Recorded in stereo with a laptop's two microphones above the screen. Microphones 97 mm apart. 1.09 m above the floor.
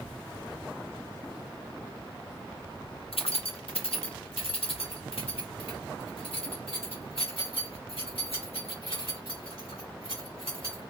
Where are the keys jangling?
80° left, 0.5 m; by 10.9 s 90° left, 4.5 m.